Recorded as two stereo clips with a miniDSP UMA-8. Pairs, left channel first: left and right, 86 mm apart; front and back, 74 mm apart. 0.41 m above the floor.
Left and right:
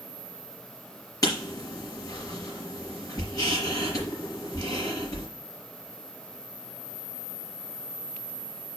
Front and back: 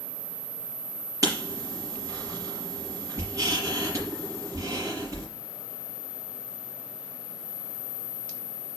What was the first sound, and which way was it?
Writing, 135° left.